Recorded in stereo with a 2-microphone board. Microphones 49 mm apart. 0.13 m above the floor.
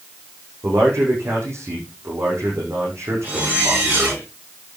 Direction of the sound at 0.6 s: 70° right (ahead or behind).